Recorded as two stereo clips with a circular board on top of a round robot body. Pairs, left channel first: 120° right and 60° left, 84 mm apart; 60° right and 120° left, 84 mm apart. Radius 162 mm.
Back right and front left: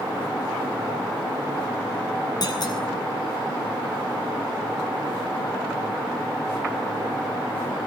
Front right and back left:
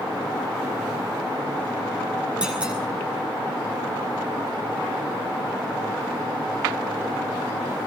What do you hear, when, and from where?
2.4 s a clunk: 160° right, 9 m